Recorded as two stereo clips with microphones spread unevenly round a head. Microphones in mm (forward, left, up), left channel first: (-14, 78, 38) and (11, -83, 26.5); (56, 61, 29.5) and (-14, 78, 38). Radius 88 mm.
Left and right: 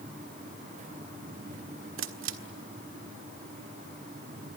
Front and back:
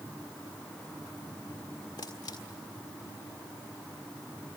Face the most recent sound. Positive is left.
turn(degrees=-75)